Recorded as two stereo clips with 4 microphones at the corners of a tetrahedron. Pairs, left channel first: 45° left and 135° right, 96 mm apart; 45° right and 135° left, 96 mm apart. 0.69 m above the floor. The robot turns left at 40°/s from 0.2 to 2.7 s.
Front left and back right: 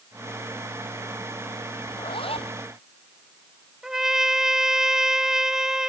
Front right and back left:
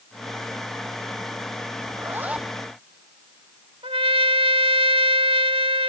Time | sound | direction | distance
1.9 | a zipper | 75° left | ?
3.8 | a trumpet | 140° left | ?